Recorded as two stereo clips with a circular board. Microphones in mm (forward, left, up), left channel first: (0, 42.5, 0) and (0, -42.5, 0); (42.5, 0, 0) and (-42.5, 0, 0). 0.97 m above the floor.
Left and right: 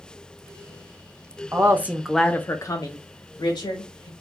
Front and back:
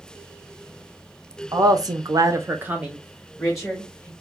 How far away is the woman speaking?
About 0.7 m.